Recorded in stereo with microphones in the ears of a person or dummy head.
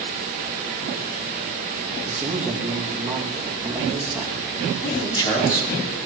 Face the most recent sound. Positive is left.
turn(degrees=25)  # may be behind; listen again after turning